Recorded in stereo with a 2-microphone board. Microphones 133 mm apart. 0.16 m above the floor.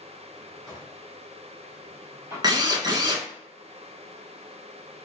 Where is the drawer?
25° right (ahead or behind), 2.5 m.